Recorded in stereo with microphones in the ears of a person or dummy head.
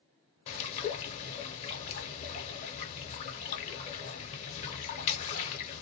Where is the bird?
35° left (ahead or behind), 0.7 m.